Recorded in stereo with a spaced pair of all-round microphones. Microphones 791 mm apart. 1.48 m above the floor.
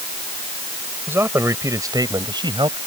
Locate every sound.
1.1 s a man speaking: 5° right (ahead or behind)